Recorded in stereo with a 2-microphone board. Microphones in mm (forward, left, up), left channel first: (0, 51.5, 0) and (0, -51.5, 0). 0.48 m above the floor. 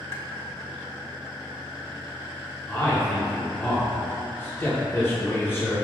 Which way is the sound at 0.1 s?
30° left (ahead or behind).